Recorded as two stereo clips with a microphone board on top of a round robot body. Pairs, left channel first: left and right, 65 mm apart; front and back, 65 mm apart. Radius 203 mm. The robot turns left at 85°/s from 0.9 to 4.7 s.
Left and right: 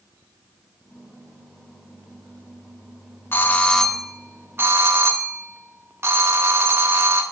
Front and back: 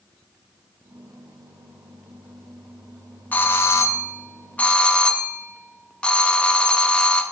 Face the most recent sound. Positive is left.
turn(degrees=-65)